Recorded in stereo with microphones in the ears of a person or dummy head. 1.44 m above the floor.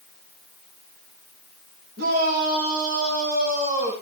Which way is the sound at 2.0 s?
55° right (ahead or behind).